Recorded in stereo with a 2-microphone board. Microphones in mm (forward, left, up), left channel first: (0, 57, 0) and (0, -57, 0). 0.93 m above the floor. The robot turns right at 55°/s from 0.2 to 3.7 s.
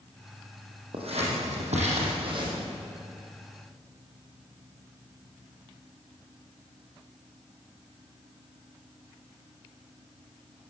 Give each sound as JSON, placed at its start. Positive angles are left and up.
{"t": 0.9, "sound": "scissors", "side_deg": -55, "distance_m": 7.0}